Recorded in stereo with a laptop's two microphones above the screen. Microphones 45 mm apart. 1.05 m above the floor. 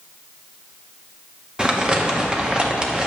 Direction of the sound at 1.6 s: 20° right (ahead or behind).